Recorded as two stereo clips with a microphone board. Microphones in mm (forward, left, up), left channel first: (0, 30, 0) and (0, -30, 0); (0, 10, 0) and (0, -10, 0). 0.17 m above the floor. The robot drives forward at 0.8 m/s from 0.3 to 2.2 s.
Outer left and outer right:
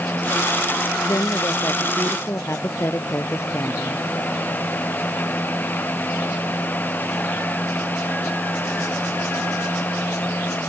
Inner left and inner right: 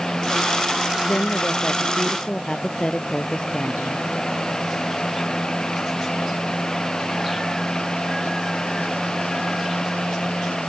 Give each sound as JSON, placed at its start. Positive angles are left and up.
{"t": 1.1, "sound": "a woman speaking", "side_deg": 50}